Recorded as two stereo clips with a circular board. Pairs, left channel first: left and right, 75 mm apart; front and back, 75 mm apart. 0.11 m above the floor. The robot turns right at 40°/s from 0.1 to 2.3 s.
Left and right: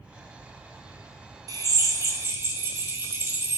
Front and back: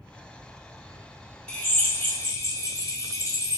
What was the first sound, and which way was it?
A drill, 75° right.